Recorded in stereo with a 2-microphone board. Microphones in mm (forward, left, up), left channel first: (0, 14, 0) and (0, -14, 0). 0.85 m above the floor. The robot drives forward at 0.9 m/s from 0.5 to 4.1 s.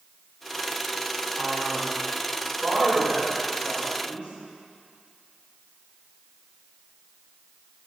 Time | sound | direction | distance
1.4 | a man speaking | 75° right (ahead or behind) | 3.5 m